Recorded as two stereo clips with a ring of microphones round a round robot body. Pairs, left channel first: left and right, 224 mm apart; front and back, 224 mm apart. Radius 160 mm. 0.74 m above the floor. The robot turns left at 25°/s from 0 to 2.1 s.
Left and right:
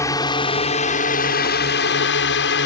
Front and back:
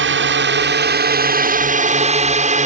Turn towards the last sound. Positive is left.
turn(degrees=130)